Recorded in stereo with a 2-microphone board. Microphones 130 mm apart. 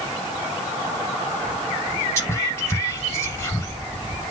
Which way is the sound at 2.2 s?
20° left (ahead or behind).